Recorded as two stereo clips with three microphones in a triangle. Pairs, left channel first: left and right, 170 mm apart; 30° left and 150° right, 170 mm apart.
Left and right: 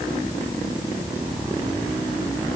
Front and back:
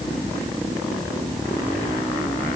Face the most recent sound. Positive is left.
No sound to turn to.